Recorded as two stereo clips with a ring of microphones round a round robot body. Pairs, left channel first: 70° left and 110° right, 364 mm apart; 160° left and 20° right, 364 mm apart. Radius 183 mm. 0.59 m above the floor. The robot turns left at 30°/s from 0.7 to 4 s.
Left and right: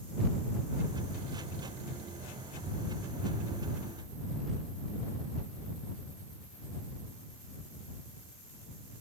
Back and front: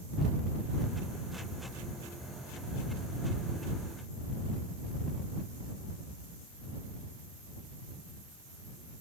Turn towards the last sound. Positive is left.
No sound to turn to.